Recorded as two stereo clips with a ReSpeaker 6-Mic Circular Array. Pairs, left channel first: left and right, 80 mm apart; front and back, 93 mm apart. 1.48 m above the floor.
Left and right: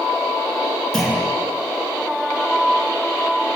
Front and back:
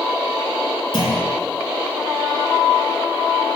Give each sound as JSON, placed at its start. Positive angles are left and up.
{"t": 0.9, "sound": "a clunk", "azimuth_deg": 5, "distance_m": 5.5}